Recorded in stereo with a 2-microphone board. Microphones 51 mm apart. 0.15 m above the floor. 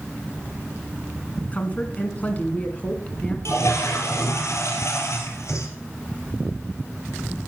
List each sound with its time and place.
1.4 s a woman speaking: 30° left (ahead or behind), 1.8 m
3.5 s a toilet flushing: 70° left (ahead or behind), 2.5 m